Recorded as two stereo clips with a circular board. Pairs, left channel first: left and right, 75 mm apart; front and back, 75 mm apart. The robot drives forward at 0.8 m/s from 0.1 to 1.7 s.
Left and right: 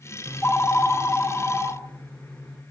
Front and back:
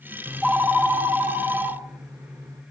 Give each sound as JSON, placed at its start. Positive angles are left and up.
{"t": 0.3, "sound": "a phone ringing", "azimuth_deg": 85, "distance_m": 0.7}